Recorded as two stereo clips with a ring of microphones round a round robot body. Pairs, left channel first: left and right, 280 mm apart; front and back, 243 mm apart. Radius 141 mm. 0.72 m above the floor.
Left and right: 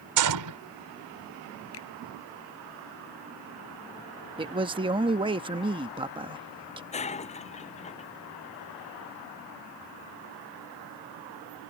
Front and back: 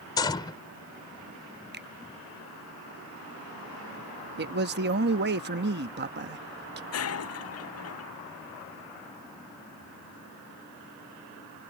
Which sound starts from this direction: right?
A gunshot, at 0.2 s.